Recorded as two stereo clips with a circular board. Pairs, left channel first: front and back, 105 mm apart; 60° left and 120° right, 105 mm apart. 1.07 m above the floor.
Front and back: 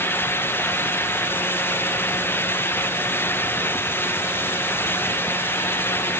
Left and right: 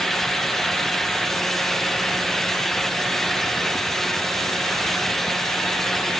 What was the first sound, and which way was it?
Only background noise.